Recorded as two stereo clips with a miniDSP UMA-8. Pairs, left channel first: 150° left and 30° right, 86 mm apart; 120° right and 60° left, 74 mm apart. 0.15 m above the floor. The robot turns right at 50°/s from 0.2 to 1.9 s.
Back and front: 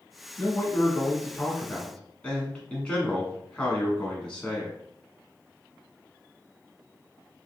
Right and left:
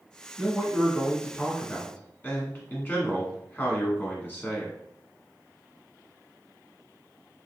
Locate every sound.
0.4 s a man speaking: 135° left, 1.2 m; by 4.8 s 145° right, 1.2 m